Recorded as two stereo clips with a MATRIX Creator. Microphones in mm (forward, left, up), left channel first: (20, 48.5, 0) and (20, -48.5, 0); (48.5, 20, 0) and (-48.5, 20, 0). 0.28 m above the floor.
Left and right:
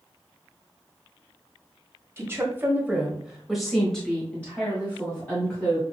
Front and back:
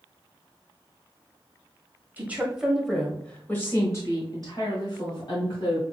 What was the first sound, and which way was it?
A woman speaking, 125° right.